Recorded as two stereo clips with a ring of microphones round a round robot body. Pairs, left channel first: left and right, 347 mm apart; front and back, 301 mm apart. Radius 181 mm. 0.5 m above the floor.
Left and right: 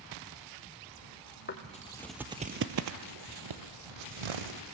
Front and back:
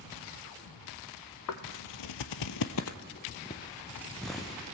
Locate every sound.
1.5 s footsteps: 25° left, 1.3 m; by 4.6 s 95° right, 2.5 m